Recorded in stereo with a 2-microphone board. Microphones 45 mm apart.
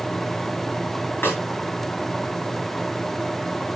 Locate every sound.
1.2 s a snare drum: 50° left (ahead or behind), 5.5 m